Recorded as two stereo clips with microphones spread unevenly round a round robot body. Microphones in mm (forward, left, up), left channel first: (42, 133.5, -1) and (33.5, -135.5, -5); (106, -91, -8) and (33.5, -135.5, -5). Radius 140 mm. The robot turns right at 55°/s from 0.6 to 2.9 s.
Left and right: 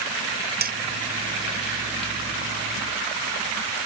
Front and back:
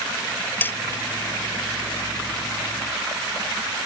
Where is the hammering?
35° right; by 0.8 s 30° right.